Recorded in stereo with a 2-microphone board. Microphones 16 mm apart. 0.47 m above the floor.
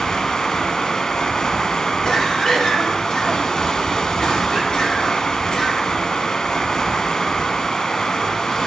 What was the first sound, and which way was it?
Running water, 50° left (ahead or behind).